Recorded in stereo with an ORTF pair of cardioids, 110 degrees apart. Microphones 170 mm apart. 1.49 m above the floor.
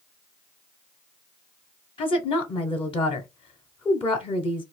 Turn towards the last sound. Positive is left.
turn(degrees=35)